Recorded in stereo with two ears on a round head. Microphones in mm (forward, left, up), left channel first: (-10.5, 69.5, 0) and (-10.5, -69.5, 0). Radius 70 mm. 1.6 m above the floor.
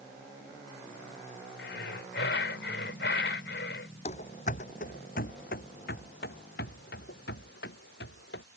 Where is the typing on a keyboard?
No typing on a keyboard in this recording.